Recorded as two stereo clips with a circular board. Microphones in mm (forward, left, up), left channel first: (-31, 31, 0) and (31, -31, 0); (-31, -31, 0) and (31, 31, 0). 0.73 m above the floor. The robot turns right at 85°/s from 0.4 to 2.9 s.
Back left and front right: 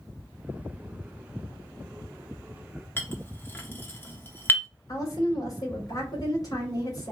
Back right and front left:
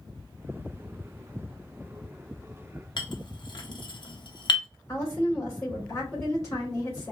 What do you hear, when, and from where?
3.0 s a clink: 160° right, 0.8 m
4.9 s a woman speaking: straight behind, 3 m